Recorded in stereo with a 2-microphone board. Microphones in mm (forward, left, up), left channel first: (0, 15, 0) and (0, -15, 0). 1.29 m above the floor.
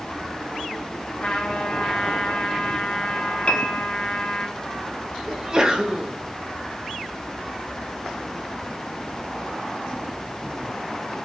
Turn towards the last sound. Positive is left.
turn(degrees=-25)  # may be behind; listen again after turning